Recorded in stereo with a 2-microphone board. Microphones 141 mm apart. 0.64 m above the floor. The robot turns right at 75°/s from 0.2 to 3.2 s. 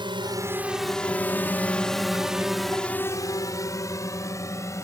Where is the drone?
35° right (ahead or behind); by 4.8 s 20° left (ahead or behind).